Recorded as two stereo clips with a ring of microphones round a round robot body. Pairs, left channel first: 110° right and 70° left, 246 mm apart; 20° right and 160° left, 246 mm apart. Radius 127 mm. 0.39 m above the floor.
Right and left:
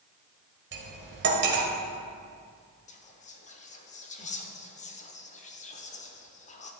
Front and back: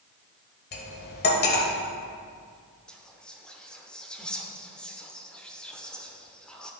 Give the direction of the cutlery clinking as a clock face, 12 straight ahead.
11 o'clock.